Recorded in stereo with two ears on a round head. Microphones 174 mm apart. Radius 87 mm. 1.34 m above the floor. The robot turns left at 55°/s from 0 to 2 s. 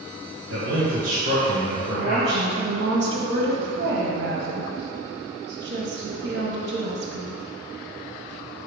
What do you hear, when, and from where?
0.5 s a man speaking: 100° right, 1.2 m; by 2.8 s 175° left, 1.2 m
1.8 s a woman speaking: 70° right (ahead or behind), 1.4 m; by 7.4 s 60° right (ahead or behind), 1.4 m